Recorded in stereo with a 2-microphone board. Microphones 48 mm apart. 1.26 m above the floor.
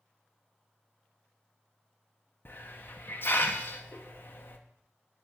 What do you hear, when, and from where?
2.5 s a hiss: 45° left (ahead or behind), 0.7 m